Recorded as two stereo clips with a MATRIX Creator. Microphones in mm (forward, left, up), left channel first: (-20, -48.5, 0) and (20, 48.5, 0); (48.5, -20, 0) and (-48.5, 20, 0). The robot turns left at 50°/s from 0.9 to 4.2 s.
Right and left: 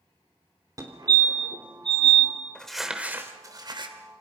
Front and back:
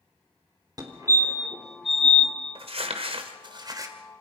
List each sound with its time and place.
0.8 s a fire alarm: 115° left, 3.5 m; by 2.3 s 45° left, 3.5 m
2.5 s crumpling: 170° left, 2.5 m; by 4.0 s 95° left, 2.5 m